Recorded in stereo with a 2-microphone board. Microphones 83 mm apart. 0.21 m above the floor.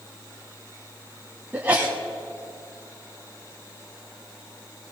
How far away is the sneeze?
About 1.6 m.